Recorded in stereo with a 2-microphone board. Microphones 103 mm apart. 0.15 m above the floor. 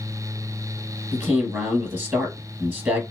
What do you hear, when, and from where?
1.1 s a man speaking: 20° right (ahead or behind), 2.5 m